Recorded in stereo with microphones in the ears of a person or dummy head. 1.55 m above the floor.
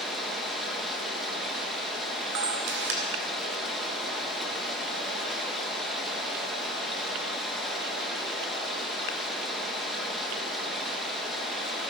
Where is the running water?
Centre (ahead or behind), 1.9 m.